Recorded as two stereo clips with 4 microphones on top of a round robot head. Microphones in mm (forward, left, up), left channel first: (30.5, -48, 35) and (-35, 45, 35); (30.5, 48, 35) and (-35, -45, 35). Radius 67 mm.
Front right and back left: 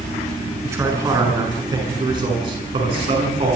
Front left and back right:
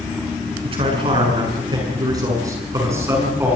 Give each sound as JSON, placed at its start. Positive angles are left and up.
{"t": 0.6, "sound": "a man speaking", "azimuth_deg": -170, "distance_m": 8.0}